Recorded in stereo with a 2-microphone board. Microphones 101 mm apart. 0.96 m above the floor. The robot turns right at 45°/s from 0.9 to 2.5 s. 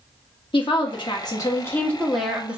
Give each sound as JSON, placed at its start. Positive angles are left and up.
{"t": 0.5, "sound": "a woman speaking", "azimuth_deg": 120, "distance_m": 1.1}